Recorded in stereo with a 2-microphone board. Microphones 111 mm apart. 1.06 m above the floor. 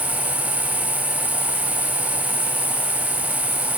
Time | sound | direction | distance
0.0 | an insect | 40° left (ahead or behind) | 3.5 m